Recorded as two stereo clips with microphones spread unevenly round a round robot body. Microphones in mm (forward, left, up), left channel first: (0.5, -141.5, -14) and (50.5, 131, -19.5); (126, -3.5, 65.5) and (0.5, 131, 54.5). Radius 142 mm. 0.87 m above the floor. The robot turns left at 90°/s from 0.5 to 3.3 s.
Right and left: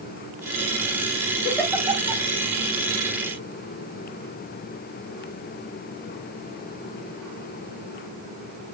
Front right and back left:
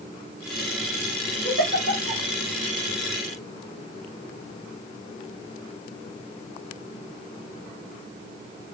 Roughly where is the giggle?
Behind.